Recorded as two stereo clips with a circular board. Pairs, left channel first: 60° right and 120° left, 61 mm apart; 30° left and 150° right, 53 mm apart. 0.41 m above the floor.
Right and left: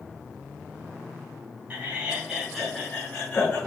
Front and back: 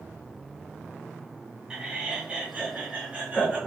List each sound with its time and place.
1.7 s laughter: 150° left, 0.9 m; by 3.6 s 105° right, 1.1 m